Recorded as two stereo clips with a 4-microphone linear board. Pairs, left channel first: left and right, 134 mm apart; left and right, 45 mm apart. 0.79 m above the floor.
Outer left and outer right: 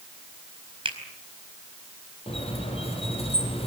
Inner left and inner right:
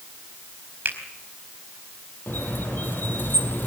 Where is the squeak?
45° left (ahead or behind), 4.5 m.